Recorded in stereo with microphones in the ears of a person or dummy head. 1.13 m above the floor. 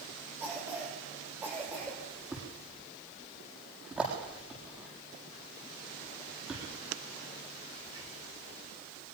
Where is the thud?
5° right (ahead or behind), 8 m.